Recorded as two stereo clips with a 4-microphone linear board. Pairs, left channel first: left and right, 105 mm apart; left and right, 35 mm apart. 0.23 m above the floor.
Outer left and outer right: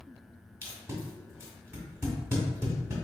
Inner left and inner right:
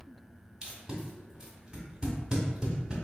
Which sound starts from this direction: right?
Tape being pulled, at 0.6 s.